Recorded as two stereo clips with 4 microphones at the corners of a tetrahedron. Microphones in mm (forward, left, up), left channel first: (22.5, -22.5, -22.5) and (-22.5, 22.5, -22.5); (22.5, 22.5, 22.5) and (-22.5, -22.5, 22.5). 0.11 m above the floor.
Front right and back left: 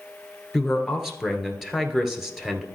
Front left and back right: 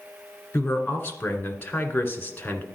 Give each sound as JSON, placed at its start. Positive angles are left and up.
{"t": 0.5, "sound": "a man speaking", "azimuth_deg": 55, "distance_m": 1.4}